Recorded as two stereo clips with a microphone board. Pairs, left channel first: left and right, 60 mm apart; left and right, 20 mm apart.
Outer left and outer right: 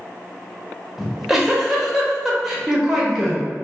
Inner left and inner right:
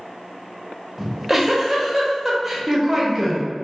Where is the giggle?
5° right (ahead or behind), 0.7 m.